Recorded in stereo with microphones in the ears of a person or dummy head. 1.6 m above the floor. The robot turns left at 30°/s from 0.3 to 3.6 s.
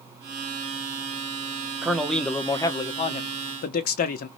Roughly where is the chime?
I don't hear a chime.